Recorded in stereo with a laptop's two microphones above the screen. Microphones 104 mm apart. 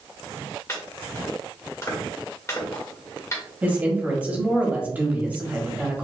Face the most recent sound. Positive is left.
turn(degrees=-15)  # may be behind; listen again after turning